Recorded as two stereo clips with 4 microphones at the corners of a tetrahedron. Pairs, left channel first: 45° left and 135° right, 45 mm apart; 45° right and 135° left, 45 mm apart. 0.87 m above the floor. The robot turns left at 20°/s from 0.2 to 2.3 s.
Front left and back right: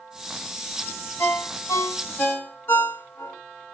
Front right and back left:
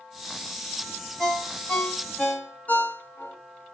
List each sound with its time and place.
1.2 s a ringtone: 35° left, 1.1 m; by 3.4 s 15° left, 1.1 m